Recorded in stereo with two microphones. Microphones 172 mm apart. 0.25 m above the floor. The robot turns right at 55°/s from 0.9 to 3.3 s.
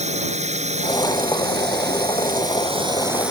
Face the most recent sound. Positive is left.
turn(degrees=-5)